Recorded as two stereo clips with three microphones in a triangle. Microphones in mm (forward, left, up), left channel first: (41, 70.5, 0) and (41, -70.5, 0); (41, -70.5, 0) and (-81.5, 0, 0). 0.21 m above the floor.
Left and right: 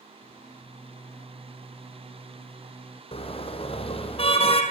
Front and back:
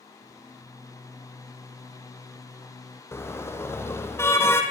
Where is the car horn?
40° left, 3.5 m.